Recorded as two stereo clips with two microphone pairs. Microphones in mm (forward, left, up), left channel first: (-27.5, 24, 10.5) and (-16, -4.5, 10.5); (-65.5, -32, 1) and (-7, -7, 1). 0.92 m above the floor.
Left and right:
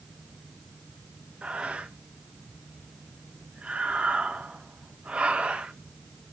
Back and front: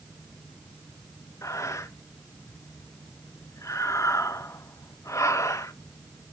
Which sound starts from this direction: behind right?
Breathing, at 1.4 s.